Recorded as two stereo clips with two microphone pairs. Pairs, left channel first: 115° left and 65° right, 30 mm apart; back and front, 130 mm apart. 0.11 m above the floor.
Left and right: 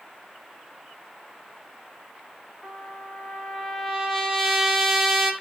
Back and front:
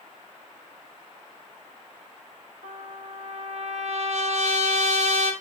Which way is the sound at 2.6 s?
20° left.